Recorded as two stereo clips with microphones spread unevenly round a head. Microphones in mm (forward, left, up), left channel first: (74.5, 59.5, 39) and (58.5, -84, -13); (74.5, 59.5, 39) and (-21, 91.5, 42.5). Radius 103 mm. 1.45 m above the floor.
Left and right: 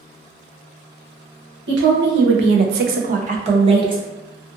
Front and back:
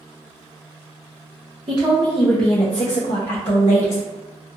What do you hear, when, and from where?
1.7 s a woman speaking: 140° right, 0.7 m; by 4.0 s 35° right, 1.0 m